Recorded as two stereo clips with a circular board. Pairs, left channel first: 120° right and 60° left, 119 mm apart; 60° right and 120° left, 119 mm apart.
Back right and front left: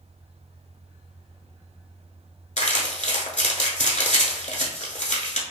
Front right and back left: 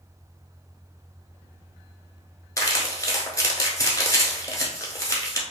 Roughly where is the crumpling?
Behind right.